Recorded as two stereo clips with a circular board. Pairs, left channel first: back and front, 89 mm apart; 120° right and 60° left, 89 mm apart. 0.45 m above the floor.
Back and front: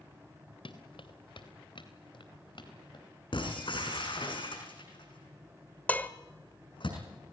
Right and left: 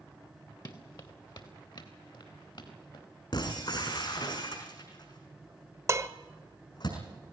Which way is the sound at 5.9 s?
110° left.